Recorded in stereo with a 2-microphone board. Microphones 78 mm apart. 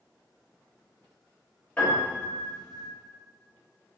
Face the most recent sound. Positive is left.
turn(degrees=20)  # may be behind; listen again after turning